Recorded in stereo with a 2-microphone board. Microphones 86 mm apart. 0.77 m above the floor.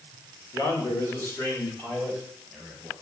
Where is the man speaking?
45° left (ahead or behind), 2 m; by 2.9 s 5° left (ahead or behind), 3.5 m.